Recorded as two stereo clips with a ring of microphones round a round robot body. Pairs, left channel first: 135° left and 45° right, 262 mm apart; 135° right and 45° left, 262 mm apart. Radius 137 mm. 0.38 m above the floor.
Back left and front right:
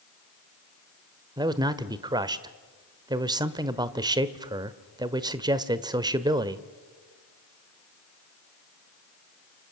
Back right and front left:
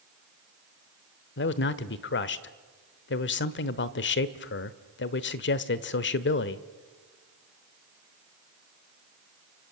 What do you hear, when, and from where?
1.4 s a man speaking: 115° right, 1.2 m